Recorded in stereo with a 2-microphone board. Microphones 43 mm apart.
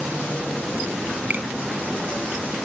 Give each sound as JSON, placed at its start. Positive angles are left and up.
{"t": 1.3, "sound": "a finger snap", "side_deg": -45, "distance_m": 1.3}